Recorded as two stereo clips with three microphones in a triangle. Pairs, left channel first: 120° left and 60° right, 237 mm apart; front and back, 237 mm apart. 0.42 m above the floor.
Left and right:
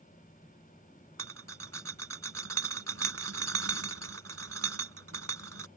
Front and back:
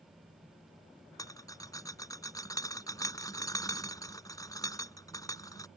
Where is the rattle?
75° right.